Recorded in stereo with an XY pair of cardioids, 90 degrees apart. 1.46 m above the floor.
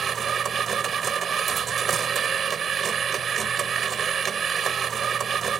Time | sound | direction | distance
0.0 | a machine running | 55° right | ?